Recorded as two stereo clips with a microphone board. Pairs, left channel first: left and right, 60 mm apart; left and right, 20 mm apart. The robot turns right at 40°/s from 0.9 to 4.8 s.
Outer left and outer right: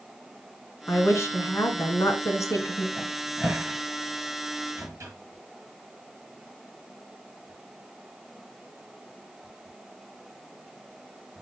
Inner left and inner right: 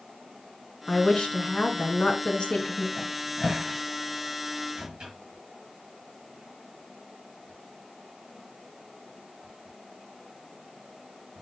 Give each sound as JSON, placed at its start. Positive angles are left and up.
{"t": 0.9, "sound": "a woman speaking", "azimuth_deg": 45, "distance_m": 2.0}
{"t": 3.0, "sound": "a cupboard door", "side_deg": 5, "distance_m": 4.0}